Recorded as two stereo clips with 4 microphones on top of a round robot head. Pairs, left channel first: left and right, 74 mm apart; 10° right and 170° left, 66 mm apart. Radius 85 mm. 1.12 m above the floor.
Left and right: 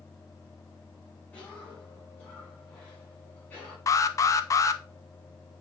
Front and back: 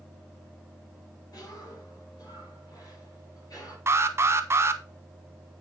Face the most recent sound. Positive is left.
turn(degrees=125)